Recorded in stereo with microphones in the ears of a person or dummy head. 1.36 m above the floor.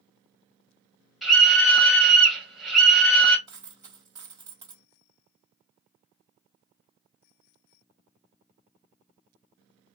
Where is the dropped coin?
20° right (ahead or behind), 1.4 m.